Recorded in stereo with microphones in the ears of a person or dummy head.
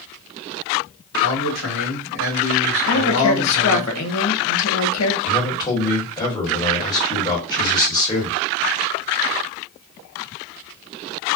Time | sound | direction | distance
1.2 | a man speaking | 75° left (ahead or behind) | 1.4 m
2.9 | a woman speaking | 90° left | 1.0 m
5.2 | a man speaking | 20° left (ahead or behind) | 1.5 m